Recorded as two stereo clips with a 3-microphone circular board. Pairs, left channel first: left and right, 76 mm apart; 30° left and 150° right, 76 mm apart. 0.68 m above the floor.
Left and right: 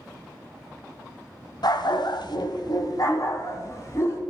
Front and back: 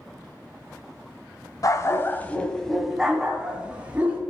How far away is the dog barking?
About 1.0 m.